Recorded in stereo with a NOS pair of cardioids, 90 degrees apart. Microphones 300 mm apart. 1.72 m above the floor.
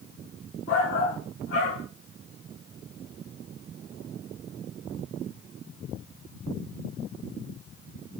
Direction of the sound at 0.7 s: 55° left.